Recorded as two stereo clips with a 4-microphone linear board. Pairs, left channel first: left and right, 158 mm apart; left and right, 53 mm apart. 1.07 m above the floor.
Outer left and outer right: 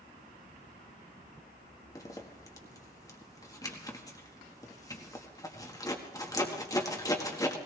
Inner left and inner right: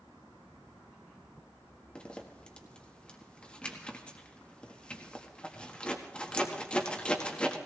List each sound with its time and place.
1.9 s a zipper: 20° left (ahead or behind), 1.7 m